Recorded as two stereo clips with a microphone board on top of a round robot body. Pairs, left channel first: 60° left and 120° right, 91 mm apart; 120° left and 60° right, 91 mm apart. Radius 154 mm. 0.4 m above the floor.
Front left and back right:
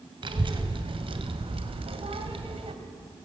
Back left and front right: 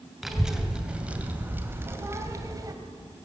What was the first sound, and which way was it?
A child speaking, 145° right.